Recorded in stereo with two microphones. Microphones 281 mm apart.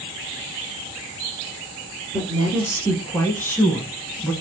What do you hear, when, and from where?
2.1 s a woman speaking: 10° left (ahead or behind), 1.3 m; by 4.3 s 5° left (ahead or behind), 1.1 m